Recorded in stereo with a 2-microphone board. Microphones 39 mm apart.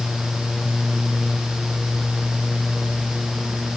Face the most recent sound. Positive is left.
No sound to turn to.